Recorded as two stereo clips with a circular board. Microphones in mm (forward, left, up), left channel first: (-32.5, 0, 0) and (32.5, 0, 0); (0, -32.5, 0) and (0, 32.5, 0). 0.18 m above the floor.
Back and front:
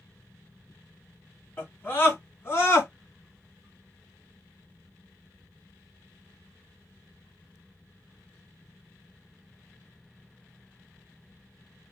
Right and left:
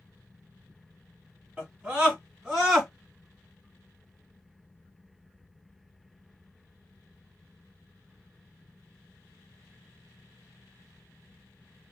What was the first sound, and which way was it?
A scream, 145° left.